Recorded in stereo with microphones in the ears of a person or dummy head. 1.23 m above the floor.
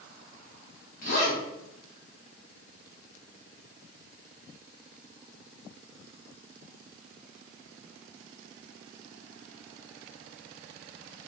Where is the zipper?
50° left (ahead or behind), 1.0 m.